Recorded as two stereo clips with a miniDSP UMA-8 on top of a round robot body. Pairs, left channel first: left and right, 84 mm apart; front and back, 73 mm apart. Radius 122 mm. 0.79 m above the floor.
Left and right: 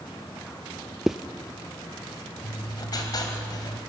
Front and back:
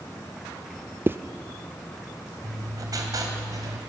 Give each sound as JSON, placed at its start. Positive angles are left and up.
{"t": 1.1, "sound": "a zipper", "azimuth_deg": -170, "distance_m": 0.5}
{"t": 2.4, "sound": "writing", "azimuth_deg": 135, "distance_m": 2.5}